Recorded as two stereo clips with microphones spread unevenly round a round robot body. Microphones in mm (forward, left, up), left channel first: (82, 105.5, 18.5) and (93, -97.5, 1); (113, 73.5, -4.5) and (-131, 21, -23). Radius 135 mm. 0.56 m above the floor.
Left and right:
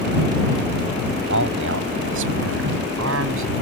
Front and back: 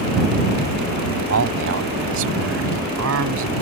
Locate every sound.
1.3 s a man speaking: 125° right